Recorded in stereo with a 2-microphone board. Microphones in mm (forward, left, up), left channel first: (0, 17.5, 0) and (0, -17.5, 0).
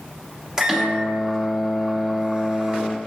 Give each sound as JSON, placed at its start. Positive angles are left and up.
{"t": 0.6, "sound": "a microwave", "side_deg": -20, "distance_m": 1.2}